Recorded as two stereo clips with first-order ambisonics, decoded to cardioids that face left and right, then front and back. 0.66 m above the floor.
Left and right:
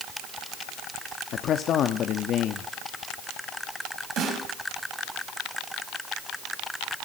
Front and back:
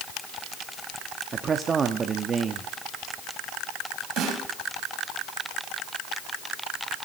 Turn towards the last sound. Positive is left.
turn(degrees=-135)